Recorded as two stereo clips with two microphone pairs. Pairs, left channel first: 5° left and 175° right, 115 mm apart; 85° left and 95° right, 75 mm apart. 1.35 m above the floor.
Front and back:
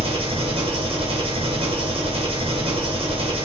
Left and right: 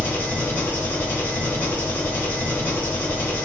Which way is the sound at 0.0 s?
150° left.